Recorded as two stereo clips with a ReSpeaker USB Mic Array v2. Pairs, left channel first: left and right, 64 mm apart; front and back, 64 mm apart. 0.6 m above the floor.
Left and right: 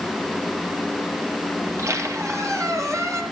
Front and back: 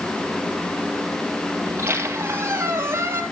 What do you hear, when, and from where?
1.6 s a squeak: 125° right, 2.5 m